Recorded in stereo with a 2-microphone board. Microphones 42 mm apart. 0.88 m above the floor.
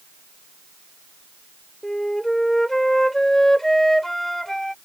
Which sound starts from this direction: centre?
A flute, at 1.8 s.